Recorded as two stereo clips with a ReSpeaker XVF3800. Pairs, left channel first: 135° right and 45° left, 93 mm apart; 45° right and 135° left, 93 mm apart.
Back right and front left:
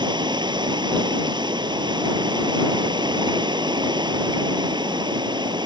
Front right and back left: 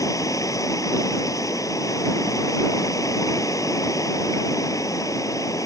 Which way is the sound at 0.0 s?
10° left.